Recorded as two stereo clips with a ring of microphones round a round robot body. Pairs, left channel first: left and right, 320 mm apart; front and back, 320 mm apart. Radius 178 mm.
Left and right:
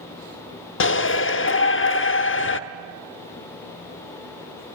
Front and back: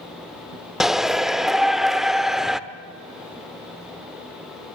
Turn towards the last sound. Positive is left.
turn(degrees=90)